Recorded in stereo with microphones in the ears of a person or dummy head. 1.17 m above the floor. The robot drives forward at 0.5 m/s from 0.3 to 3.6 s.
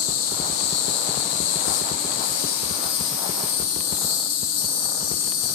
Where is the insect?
60° left (ahead or behind), 2.0 m; by 5.6 s 70° left (ahead or behind), 1.9 m.